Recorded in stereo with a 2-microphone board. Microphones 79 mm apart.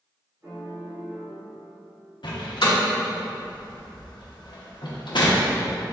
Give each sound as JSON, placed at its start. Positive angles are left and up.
{"t": 0.4, "sound": "a piano", "side_deg": -35, "distance_m": 1.6}
{"t": 2.2, "sound": "a door slam", "side_deg": 75, "distance_m": 0.7}